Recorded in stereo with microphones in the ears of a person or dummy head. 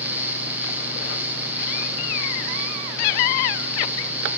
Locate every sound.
0.0 s a fan: 5° right (ahead or behind), 1.1 m